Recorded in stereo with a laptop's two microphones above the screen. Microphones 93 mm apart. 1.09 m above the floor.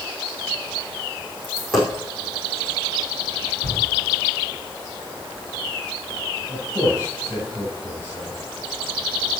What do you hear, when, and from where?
1.4 s a dropped coin: centre (ahead or behind), 3.5 m
3.6 s a shout: 25° right (ahead or behind), 8 m
6.5 s a man speaking: 25° left (ahead or behind), 5.5 m